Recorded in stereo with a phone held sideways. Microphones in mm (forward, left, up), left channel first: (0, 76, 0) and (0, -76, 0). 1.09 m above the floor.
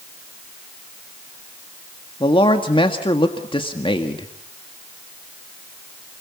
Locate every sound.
2.2 s a man speaking: 35° left (ahead or behind), 1.6 m